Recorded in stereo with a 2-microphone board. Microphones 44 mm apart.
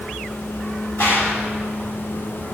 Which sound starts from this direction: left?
A gunshot, at 1.0 s.